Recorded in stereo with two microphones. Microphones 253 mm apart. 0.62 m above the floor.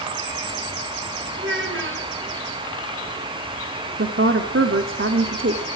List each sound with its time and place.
1.4 s a child speaking: 50° right (ahead or behind), 5 m
4.0 s a woman speaking: 55° right (ahead or behind), 1.7 m